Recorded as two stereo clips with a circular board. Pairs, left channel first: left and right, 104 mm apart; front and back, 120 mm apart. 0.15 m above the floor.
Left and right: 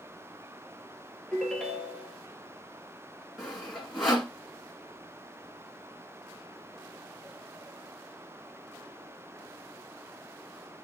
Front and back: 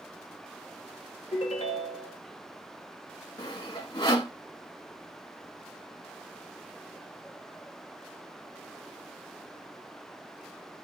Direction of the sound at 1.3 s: 5° left.